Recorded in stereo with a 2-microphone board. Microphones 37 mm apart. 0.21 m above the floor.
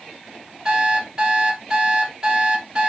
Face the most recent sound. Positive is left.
turn(degrees=-20)  # may be behind; listen again after turning